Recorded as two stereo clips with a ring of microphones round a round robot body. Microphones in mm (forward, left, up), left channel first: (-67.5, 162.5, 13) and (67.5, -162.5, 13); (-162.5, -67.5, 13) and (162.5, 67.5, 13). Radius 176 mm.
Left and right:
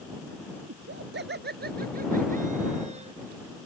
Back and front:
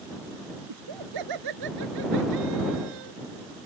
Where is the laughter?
10° right; by 3.1 s 5° left.